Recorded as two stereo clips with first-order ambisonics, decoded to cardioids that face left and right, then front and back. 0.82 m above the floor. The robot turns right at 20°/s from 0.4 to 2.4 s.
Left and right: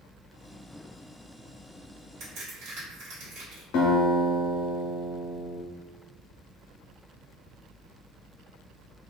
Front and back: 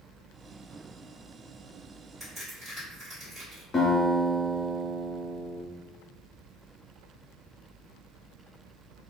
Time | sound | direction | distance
2.2 | a crack | 100° right | 1.9 m
3.7 | a guitar | 65° left | 0.7 m